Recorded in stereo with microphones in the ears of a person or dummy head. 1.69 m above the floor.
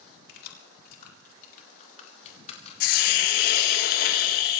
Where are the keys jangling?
60° left (ahead or behind), 3.5 m; by 3.8 s 35° left (ahead or behind), 4.5 m.